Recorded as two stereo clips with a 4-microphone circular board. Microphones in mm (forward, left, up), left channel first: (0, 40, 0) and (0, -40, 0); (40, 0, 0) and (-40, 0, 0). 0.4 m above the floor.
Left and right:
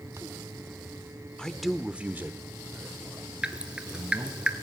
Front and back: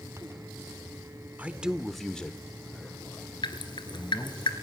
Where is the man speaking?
150° left, 0.7 m; by 4.4 s 55° right, 2 m.